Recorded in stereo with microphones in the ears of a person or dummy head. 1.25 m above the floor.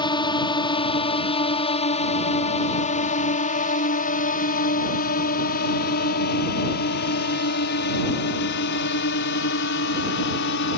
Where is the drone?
25° left (ahead or behind); by 10.8 s 65° left (ahead or behind).